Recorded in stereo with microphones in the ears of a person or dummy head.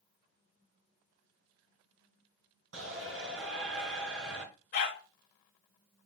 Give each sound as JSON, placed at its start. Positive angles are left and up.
{"t": 2.7, "sound": "a shout", "side_deg": -80, "distance_m": 4.5}
{"t": 4.7, "sound": "a dog barking", "side_deg": 45, "distance_m": 2.5}